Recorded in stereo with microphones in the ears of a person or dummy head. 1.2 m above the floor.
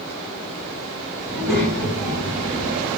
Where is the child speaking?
10° right (ahead or behind), 1.1 m.